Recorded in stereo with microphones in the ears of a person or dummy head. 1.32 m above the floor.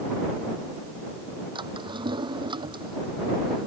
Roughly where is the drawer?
Right.